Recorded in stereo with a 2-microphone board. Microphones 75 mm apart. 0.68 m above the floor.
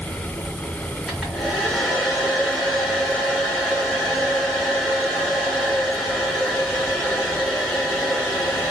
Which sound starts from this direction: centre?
A hair dryer, at 1.1 s.